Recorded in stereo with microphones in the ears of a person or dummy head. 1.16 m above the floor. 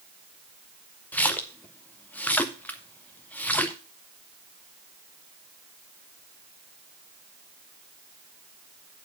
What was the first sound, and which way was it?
A splash, 10° left (ahead or behind).